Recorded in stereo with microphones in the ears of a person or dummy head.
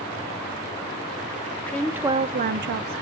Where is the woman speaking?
10° left (ahead or behind), 0.9 m; by 3.0 s 80° right, 0.9 m.